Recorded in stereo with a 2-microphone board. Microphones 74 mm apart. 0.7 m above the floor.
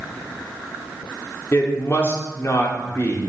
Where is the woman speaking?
35° left (ahead or behind), 1.8 m.